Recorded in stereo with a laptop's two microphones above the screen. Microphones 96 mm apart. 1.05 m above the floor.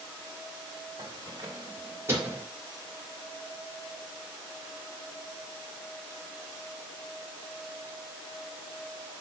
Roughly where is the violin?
No violin in this recording.